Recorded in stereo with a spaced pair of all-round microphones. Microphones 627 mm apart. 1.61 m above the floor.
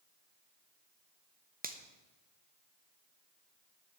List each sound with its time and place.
1.6 s a finger snap: 15° right (ahead or behind), 0.8 m